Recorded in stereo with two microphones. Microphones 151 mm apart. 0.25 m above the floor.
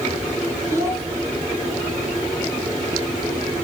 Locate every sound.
0.7 s a child speaking: 20° right (ahead or behind), 1.3 m